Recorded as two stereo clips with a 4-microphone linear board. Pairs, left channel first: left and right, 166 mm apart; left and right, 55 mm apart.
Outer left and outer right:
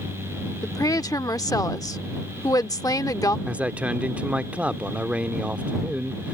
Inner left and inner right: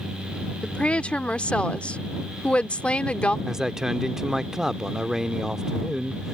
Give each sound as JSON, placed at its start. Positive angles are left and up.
{"t": 0.6, "sound": "a woman speaking", "side_deg": 20}
{"t": 3.5, "sound": "a man speaking", "side_deg": -10}